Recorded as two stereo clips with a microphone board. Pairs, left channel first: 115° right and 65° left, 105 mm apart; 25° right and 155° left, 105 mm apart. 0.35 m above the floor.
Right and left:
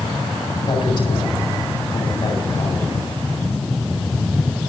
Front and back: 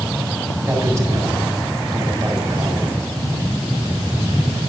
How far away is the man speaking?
About 3 m.